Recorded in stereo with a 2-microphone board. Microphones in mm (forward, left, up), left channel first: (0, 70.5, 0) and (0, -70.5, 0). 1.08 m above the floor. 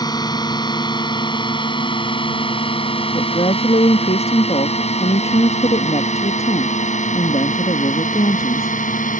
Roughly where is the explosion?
No explosion in this recording.